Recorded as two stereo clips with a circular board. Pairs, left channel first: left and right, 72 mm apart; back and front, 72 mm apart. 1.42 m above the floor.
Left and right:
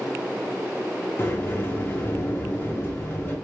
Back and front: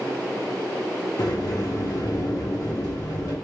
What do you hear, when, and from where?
1.2 s a sliding door: 150° left, 1.1 m